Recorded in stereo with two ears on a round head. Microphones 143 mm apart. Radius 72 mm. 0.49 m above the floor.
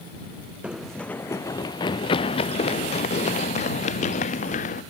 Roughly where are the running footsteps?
Centre.